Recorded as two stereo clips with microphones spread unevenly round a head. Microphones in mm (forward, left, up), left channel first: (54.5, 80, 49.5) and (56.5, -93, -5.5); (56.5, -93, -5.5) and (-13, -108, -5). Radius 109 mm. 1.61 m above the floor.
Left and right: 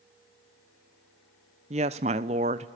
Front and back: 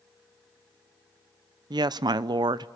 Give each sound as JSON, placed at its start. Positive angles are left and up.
{"t": 1.7, "sound": "a woman speaking", "azimuth_deg": -155, "distance_m": 0.7}